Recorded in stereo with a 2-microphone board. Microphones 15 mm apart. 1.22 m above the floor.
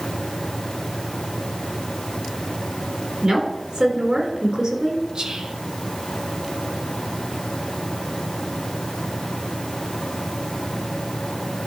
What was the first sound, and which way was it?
A woman speaking, 65° right (ahead or behind).